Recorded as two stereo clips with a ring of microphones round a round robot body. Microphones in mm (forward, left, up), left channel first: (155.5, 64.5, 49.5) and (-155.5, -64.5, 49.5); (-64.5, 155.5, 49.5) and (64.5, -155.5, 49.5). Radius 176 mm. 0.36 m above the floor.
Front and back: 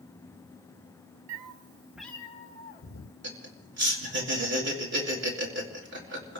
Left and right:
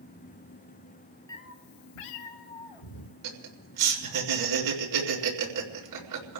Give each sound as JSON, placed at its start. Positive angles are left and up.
{"t": 1.3, "sound": "a cat meowing", "azimuth_deg": -170, "distance_m": 0.7}
{"t": 3.2, "sound": "laughter", "azimuth_deg": -100, "distance_m": 4.5}